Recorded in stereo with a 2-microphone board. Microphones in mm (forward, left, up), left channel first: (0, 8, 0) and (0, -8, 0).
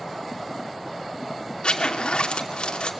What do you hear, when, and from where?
1.6 s a zipper: 75° left (ahead or behind), 2.5 m